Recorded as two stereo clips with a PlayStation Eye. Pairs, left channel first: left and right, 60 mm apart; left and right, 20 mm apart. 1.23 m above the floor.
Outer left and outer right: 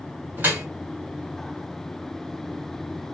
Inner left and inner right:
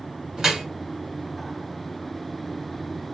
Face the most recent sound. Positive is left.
turn(degrees=-35)  # may be behind; listen again after turning